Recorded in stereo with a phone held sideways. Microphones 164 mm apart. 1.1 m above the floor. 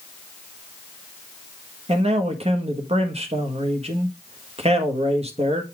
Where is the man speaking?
40° right (ahead or behind), 1.5 m.